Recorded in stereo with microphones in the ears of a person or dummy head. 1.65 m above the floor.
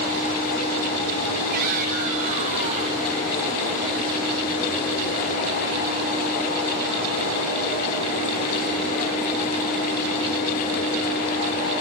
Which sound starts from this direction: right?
A shout, at 1.5 s.